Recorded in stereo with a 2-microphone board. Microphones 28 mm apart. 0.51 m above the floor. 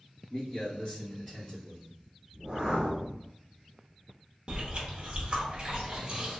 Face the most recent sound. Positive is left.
turn(degrees=-40)  # may be behind; listen again after turning